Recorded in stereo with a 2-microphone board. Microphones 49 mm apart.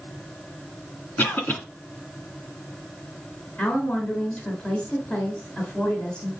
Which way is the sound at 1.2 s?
40° left (ahead or behind).